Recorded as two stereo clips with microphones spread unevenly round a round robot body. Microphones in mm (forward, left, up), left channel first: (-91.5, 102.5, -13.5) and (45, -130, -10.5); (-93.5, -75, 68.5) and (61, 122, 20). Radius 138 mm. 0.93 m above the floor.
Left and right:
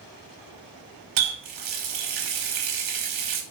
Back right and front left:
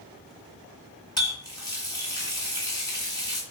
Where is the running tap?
55° right, 0.8 m.